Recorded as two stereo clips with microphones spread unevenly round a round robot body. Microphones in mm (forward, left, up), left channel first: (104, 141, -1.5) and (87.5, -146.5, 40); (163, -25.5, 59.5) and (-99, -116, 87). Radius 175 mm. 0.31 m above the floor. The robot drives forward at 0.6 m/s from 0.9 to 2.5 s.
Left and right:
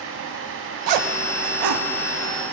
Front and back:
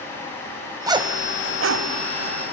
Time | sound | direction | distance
0.9 | a zipper | 80° right | 0.8 m